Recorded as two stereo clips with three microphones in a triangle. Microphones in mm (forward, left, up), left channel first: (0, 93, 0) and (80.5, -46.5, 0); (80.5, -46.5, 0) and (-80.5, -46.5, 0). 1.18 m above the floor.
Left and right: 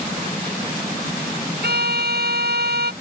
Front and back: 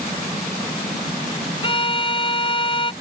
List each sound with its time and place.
1.6 s a violin: 55° right